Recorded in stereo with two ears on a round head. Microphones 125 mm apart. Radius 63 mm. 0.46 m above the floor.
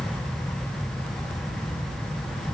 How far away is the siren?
No siren in this recording.